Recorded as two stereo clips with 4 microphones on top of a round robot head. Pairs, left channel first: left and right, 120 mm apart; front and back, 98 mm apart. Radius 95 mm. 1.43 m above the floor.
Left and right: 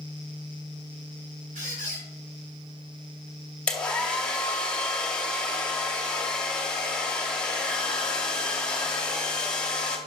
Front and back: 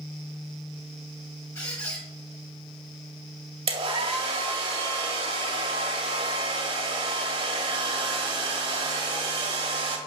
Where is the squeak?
65° right, 5 m.